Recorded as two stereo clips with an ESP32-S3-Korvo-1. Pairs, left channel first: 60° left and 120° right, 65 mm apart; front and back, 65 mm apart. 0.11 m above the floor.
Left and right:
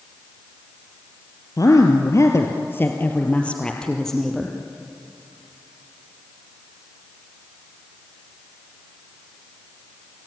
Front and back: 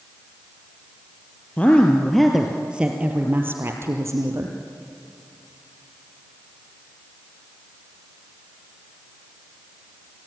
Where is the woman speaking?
65° left, 2.5 m; by 4.5 s 150° left, 3.5 m.